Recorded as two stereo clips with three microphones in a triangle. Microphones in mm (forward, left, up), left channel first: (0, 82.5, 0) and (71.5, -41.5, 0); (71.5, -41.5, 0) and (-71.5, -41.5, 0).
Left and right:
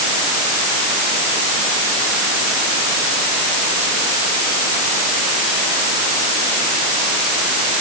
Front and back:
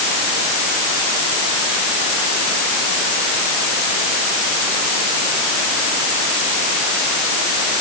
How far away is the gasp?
I don't hear a gasp.